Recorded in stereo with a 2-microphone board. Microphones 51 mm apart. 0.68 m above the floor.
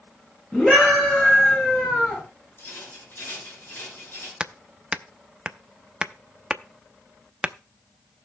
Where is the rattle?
45° left (ahead or behind), 8.5 m.